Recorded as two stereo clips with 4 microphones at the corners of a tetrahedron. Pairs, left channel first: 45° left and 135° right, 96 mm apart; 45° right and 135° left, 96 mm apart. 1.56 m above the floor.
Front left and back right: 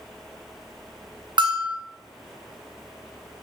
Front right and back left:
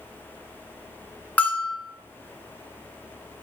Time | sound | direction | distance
1.4 | a bell | 120° right | 0.6 m